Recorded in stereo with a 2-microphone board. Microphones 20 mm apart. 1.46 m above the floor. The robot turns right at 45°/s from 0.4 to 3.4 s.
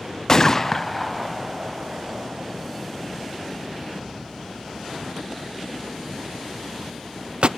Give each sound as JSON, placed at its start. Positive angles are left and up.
{"t": 0.3, "sound": "a gunshot", "side_deg": 30, "distance_m": 0.6}